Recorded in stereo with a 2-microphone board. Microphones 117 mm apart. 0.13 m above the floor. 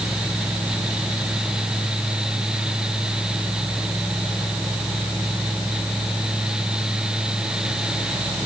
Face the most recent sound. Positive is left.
No sound to turn to.